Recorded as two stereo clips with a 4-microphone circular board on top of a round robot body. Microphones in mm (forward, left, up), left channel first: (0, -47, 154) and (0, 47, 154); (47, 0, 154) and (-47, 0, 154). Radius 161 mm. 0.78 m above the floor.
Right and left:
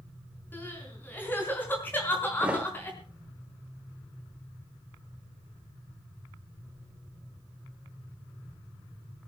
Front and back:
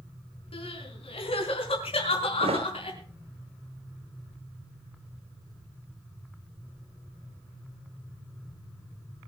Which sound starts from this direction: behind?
A thud, at 2.4 s.